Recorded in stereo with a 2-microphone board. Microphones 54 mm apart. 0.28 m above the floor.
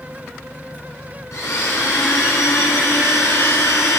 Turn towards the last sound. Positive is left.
turn(degrees=70)  # may be behind; listen again after turning